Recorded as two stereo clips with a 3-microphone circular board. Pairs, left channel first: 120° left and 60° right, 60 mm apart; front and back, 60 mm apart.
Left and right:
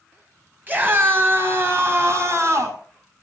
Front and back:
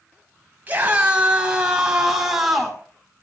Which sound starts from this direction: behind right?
A scream, at 0.7 s.